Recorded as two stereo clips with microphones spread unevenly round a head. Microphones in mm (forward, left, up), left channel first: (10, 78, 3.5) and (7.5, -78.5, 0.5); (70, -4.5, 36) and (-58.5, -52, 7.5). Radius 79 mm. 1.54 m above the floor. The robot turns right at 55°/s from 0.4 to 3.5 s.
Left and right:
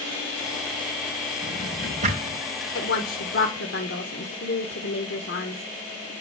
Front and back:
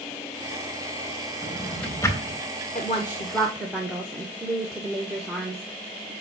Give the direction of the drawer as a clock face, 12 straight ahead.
3 o'clock.